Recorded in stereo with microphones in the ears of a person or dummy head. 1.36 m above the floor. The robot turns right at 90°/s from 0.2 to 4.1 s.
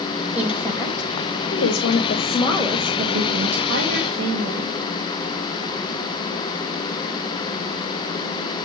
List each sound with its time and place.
0.3 s a woman speaking: 15° right, 1.7 m; by 4.7 s 40° right, 1.7 m